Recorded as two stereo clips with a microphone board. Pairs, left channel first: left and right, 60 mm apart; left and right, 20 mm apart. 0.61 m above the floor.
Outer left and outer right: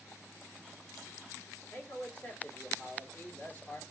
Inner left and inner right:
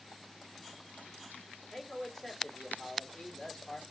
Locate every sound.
1.7 s a man speaking: 25° left (ahead or behind), 1.4 m